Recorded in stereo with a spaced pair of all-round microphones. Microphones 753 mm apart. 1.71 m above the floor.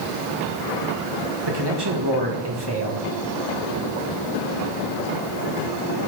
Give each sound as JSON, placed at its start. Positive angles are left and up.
{"t": 1.5, "sound": "a man speaking", "side_deg": -30, "distance_m": 1.8}